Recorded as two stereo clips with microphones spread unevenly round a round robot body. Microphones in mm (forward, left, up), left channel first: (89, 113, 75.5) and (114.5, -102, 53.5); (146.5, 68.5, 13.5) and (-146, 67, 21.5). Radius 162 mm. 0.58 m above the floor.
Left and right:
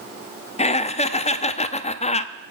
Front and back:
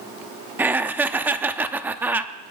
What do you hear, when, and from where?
0.6 s laughter: 100° left, 0.7 m